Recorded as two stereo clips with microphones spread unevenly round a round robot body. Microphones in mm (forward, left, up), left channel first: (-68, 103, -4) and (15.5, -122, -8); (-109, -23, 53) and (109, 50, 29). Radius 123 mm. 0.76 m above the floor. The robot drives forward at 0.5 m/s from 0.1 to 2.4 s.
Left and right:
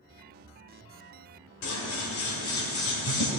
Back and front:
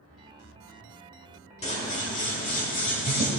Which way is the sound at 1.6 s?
135° left.